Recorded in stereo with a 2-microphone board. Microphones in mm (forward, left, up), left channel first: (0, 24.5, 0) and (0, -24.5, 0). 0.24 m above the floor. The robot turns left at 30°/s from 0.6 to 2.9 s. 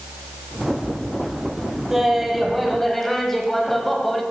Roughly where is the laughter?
Centre.